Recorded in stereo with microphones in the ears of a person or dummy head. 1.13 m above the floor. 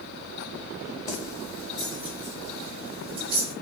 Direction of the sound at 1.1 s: 35° left (ahead or behind).